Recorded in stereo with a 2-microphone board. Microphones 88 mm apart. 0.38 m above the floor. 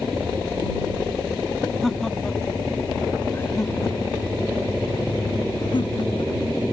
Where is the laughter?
Centre (ahead or behind); by 6.3 s 65° left (ahead or behind).